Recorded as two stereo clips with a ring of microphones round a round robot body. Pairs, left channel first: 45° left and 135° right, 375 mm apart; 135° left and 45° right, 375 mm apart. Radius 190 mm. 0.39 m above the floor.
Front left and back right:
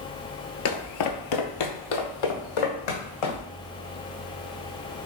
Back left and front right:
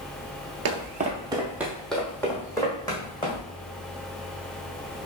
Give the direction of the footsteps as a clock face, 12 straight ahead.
12 o'clock.